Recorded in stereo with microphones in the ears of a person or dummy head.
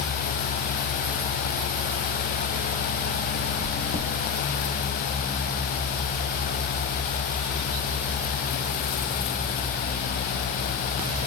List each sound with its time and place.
3.6 s chewing: 60° left (ahead or behind), 0.6 m